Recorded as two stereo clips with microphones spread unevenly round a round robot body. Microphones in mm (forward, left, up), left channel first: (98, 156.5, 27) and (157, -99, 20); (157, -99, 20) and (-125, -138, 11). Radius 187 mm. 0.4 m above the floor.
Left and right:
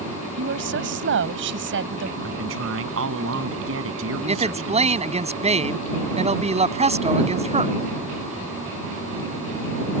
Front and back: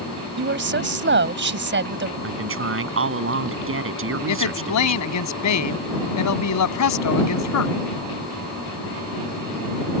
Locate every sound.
0.4 s a woman speaking: 125° right
2.2 s a man speaking: 130° right
4.3 s a woman speaking: 10° right